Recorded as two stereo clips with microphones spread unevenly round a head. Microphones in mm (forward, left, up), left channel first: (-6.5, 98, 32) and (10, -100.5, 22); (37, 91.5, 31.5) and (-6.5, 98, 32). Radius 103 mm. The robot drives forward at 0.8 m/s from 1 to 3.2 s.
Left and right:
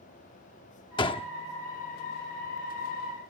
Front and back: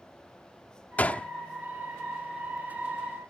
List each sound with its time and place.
1.0 s a gunshot: 35° left; by 1.3 s 45° left